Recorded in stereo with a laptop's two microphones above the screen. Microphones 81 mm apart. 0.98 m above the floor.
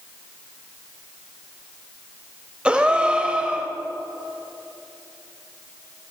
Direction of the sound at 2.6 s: 15° right (ahead or behind).